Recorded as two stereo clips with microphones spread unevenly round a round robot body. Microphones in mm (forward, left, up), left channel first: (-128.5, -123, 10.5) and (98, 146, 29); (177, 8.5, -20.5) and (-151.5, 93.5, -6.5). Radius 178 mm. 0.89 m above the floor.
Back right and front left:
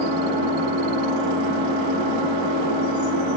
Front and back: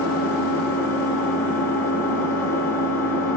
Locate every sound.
0.0 s an engine running: 70° left, 2 m